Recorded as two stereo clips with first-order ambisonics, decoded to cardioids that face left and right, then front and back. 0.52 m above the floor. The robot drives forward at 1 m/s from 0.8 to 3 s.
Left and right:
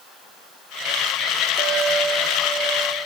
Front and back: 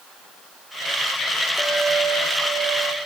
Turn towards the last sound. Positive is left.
turn(degrees=-165)